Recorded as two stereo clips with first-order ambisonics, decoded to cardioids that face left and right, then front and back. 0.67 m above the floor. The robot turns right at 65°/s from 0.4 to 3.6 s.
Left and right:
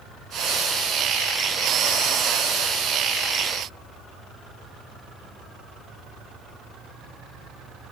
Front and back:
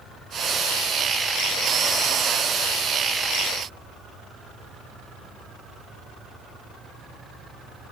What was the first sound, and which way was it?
Only background noise.